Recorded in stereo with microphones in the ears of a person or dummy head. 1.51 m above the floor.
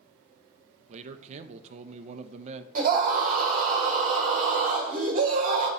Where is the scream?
45° right (ahead or behind), 1.6 m.